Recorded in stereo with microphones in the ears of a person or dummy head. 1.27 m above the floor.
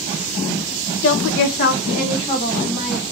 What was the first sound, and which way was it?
A woman speaking, 65° left (ahead or behind).